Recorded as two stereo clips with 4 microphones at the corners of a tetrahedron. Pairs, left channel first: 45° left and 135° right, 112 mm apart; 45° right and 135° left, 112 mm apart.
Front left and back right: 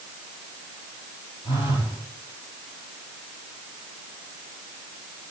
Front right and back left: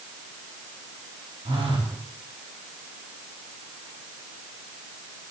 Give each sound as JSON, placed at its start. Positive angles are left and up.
{"t": 1.4, "sound": "a phone buzzing", "azimuth_deg": 90, "distance_m": 4.5}